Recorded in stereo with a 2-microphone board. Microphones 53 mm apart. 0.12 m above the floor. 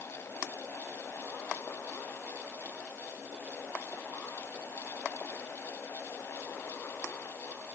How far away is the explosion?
No explosion in this recording.